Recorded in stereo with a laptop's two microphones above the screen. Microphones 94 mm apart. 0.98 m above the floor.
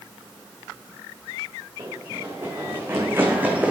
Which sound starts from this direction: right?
Running footsteps, at 1.8 s.